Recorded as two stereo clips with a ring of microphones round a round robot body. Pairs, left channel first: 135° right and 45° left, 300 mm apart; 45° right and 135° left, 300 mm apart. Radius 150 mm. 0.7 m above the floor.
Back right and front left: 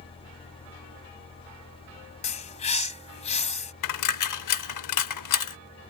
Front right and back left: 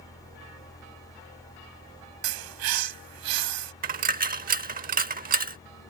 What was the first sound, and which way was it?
A bird, 155° left.